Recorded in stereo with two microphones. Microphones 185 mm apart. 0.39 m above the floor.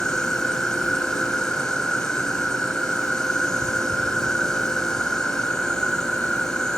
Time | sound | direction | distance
0.0 | an insect | 5° left (ahead or behind) | ?